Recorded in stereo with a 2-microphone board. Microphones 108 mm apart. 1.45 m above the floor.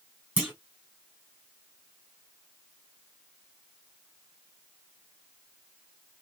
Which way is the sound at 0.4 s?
15° right (ahead or behind).